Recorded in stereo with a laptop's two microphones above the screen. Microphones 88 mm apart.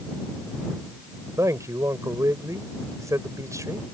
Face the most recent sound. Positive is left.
turn(degrees=-40)  # may be behind; listen again after turning